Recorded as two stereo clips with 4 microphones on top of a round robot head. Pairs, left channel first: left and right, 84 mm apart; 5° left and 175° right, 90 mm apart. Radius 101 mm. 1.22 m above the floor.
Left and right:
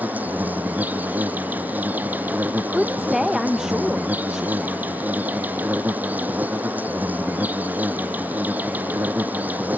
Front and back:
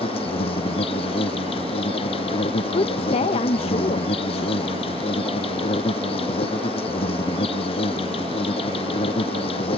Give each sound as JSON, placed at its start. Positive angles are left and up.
{"t": 0.0, "sound": "an insect", "azimuth_deg": -20}
{"t": 2.7, "sound": "a woman speaking", "azimuth_deg": -5}